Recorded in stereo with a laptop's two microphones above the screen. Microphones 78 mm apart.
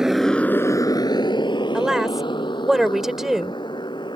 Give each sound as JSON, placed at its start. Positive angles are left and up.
{"t": 0.0, "sound": "a motorcycle", "side_deg": -5}
{"t": 1.7, "sound": "a woman speaking", "side_deg": -5}